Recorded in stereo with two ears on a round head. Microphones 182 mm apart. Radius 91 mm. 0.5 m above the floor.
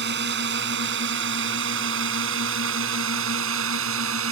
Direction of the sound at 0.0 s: 55° right (ahead or behind).